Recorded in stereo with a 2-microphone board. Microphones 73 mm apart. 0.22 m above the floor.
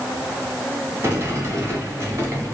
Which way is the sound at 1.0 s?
35° right (ahead or behind).